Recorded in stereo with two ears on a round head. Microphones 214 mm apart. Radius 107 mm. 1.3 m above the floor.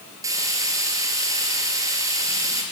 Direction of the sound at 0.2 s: 15° right (ahead or behind).